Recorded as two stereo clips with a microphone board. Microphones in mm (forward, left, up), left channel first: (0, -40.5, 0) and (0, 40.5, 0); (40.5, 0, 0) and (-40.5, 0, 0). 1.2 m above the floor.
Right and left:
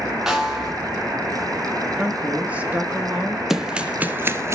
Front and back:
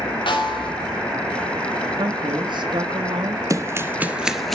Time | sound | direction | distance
0.3 | a snare drum | 5° left | 4.5 m
2.0 | a woman speaking | 160° left | 1.8 m
3.5 | running footsteps | 170° left | 1.5 m